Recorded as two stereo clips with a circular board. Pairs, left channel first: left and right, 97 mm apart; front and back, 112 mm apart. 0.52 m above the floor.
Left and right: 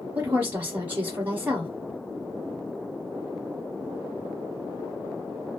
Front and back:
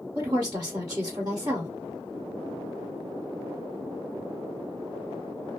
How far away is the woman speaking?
About 1.2 m.